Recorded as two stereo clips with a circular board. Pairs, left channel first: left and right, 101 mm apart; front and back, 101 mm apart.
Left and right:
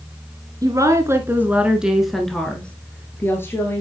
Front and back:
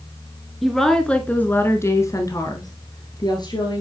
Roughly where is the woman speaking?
Right.